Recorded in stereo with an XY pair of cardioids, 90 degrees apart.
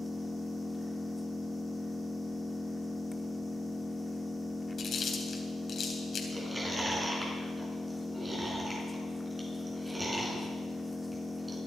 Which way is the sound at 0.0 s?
15° left.